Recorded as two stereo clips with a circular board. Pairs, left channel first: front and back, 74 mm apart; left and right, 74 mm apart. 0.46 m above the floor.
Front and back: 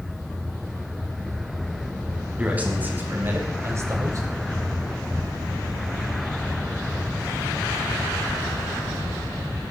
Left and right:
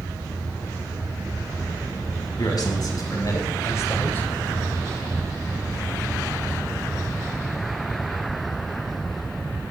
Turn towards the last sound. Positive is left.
turn(degrees=150)